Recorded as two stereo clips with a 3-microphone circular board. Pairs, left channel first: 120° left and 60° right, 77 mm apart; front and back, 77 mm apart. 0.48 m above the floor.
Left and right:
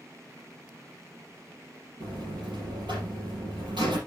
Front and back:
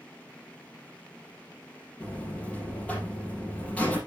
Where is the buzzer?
70° right, 4.5 m.